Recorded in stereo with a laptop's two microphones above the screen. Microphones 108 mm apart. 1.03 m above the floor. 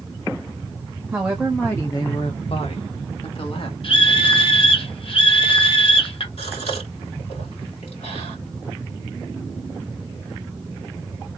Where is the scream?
60° left (ahead or behind), 0.7 m.